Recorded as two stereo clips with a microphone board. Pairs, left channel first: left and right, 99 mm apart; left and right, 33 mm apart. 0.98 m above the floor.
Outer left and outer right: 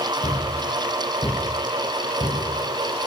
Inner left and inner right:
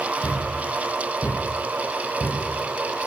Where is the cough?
I don't hear a cough.